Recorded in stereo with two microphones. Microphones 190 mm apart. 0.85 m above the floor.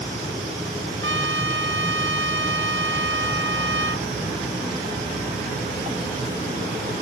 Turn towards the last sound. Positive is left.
turn(degrees=-75)  # may be behind; listen again after turning